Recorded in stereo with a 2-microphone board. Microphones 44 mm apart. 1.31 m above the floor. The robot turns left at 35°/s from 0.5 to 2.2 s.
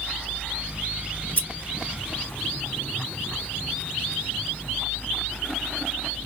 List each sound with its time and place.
1.4 s scissors: 35° left (ahead or behind), 2.5 m